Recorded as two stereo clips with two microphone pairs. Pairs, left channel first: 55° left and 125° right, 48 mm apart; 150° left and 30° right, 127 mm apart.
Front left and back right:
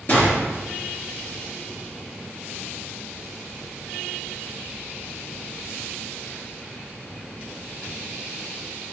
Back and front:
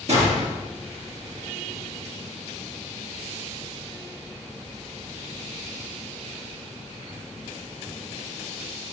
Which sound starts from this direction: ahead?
A gunshot, at 0.1 s.